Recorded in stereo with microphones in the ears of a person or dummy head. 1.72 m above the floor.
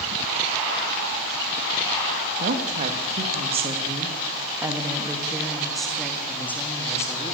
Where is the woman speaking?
50° right (ahead or behind), 3 m; by 7.3 s 15° left (ahead or behind), 4 m.